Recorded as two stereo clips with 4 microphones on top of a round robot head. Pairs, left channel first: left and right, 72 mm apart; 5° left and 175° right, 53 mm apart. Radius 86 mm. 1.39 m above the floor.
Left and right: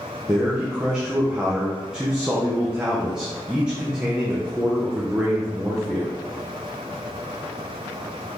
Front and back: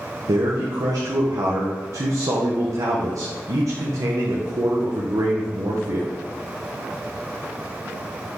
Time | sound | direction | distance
0.3 | a man speaking | 170° right | 1.2 m